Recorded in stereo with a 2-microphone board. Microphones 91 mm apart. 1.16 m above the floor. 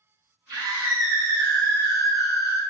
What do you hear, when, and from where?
0.5 s a scream: 50° right (ahead or behind), 1.6 m; by 2.6 s 70° left (ahead or behind), 1.3 m